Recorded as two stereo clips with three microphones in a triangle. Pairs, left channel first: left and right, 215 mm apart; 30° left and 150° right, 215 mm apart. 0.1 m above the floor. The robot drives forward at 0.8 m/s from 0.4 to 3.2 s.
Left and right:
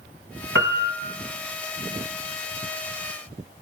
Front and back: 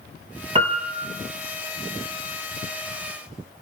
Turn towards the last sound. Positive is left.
turn(degrees=-160)